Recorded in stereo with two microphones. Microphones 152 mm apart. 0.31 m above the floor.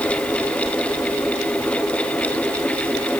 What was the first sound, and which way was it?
Only background noise.